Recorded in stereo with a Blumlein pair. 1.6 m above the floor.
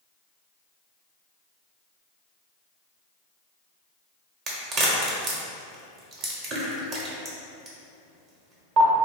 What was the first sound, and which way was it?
A crack, 30° right.